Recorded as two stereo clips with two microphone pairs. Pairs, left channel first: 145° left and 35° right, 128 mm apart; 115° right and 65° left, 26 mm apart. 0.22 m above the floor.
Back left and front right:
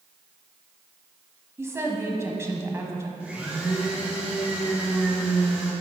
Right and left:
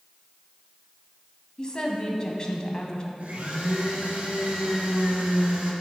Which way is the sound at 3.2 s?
40° left.